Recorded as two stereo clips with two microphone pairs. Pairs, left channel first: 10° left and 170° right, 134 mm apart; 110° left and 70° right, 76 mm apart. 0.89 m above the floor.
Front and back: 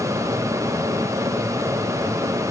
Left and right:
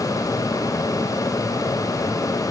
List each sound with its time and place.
Only background noise.